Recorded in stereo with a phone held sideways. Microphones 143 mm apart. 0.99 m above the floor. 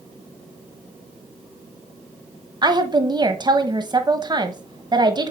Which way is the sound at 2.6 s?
30° right (ahead or behind).